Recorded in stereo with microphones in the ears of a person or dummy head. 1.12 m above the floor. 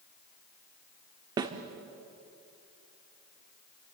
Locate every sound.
1.4 s a snare drum: 25° right (ahead or behind), 1.3 m